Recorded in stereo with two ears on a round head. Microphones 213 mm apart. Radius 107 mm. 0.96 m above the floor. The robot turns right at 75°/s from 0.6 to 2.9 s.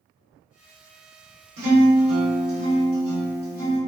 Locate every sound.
1.6 s a guitar: 60° right, 1.5 m; by 3.8 s 45° left, 1.5 m